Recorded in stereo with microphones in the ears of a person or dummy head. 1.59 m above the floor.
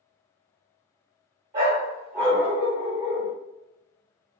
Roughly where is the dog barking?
Centre.